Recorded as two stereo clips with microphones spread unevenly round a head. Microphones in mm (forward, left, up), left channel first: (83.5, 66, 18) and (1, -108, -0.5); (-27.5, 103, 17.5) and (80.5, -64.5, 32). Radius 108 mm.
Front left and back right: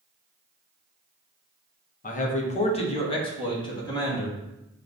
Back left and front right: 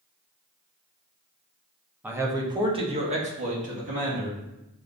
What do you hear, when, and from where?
2.0 s a man speaking: 25° left, 0.8 m; by 4.4 s 10° right, 1.8 m